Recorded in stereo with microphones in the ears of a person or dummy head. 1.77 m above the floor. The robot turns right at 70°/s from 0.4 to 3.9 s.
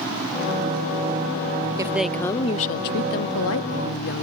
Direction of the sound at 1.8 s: 20° right.